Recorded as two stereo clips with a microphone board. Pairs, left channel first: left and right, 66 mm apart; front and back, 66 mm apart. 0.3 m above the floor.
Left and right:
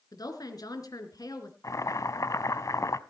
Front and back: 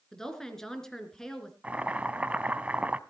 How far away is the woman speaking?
About 3 m.